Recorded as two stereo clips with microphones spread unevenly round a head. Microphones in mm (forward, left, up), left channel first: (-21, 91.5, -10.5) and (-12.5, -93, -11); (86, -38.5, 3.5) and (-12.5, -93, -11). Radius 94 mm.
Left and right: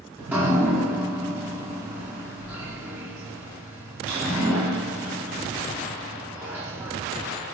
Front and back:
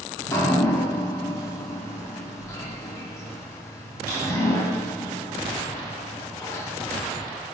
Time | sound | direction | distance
0.2 | dripping | 10° right | 0.7 m